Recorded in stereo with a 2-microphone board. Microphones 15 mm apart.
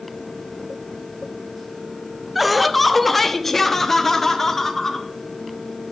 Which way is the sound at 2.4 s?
10° right (ahead or behind).